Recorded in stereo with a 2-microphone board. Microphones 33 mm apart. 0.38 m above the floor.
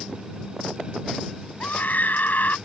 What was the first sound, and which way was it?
A scream, 65° left (ahead or behind).